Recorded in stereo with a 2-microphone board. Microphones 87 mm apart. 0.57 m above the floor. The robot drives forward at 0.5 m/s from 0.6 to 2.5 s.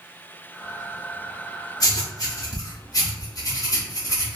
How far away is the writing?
About 0.9 m.